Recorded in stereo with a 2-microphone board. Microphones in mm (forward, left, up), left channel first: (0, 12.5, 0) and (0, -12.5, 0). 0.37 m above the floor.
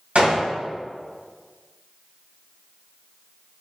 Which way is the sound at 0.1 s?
65° right (ahead or behind).